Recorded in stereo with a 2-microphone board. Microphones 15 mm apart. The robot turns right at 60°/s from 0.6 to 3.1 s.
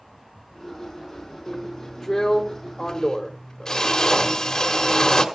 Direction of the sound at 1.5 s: 10° left.